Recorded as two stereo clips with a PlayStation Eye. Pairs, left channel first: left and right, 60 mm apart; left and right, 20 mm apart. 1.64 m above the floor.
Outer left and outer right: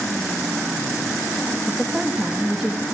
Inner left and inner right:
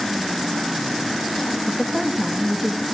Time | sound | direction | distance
1.7 | a woman speaking | 10° right (ahead or behind) | 1.9 m